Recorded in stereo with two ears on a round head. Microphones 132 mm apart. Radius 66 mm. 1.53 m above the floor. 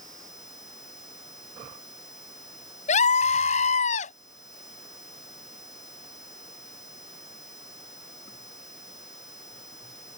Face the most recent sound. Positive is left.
turn(degrees=50)  # may be behind; listen again after turning